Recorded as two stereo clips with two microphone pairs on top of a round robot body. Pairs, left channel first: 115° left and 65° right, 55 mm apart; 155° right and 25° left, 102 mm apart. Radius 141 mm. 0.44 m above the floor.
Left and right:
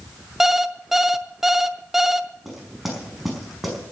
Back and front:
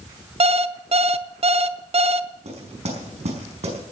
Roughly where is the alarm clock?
Ahead.